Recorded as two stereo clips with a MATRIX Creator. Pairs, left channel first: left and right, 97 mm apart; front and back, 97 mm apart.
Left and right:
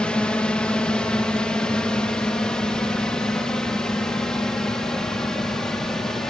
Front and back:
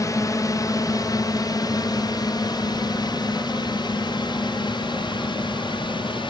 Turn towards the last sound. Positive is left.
turn(degrees=5)